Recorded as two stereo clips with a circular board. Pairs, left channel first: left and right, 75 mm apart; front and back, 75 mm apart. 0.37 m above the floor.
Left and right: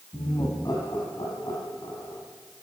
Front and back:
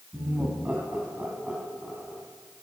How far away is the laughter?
About 3 m.